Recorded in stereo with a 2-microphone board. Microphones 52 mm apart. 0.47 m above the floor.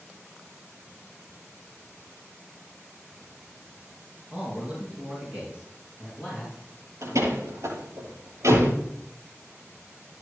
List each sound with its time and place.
4.3 s a man speaking: 20° right (ahead or behind), 5.5 m; by 6.5 s 25° right (ahead or behind), 8 m
7.0 s a door slam: 75° right (ahead or behind), 8 m